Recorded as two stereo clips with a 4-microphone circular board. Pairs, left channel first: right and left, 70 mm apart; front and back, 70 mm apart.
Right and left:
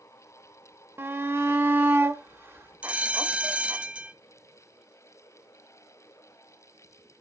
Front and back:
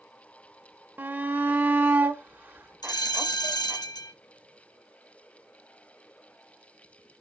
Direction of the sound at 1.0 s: 130° left.